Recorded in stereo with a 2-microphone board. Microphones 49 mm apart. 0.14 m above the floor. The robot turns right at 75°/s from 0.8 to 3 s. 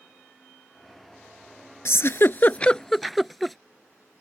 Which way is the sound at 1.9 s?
65° left (ahead or behind).